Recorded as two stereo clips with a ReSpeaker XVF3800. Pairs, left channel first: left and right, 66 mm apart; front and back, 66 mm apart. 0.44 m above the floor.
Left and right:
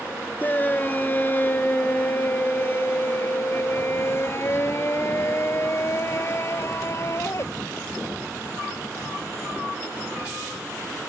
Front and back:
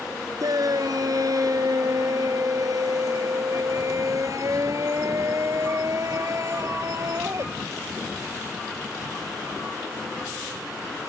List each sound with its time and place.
0.4 s a shout: 155° left; by 7.4 s 135° left